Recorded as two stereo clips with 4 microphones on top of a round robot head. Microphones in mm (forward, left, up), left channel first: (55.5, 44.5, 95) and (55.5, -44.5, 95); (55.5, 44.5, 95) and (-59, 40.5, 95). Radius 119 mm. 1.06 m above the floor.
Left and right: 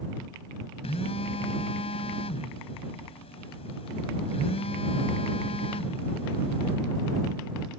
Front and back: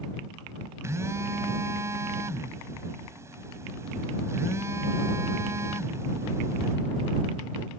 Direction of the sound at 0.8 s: 115° left.